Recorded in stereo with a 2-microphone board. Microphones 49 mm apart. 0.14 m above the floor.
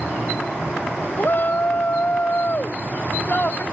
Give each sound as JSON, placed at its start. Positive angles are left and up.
{"t": 1.2, "sound": "a shout", "side_deg": 40}